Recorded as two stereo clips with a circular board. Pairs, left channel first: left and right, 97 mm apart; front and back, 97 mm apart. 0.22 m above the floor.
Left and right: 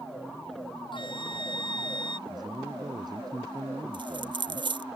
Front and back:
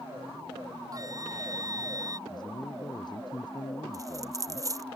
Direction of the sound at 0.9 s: 125° left.